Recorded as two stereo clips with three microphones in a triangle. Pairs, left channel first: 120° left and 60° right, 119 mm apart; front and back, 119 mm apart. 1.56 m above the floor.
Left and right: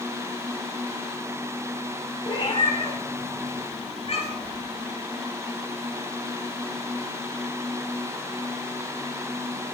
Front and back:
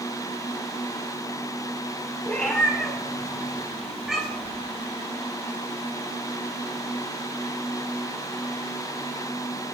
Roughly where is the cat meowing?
Left.